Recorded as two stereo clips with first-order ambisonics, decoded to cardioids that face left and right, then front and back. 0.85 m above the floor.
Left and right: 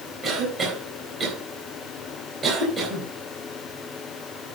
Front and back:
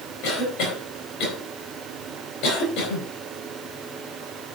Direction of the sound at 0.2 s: 25° right.